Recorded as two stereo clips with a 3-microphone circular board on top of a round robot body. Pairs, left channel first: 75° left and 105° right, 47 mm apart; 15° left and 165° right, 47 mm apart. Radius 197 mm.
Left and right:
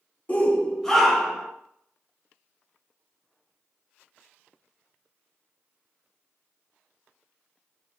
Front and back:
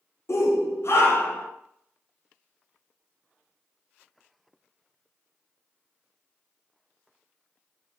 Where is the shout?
15° left, 2 m; by 1.5 s 25° right, 2.5 m.